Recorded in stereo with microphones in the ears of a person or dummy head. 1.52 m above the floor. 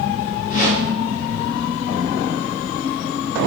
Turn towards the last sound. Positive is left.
turn(degrees=50)  # may be behind; listen again after turning